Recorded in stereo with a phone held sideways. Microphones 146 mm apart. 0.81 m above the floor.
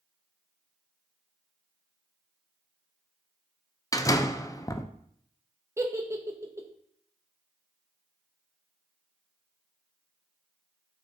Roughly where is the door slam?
Left.